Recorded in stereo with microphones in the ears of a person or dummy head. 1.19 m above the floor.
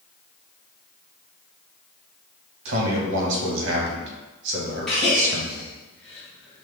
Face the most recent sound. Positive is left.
turn(degrees=5)  # may be behind; listen again after turning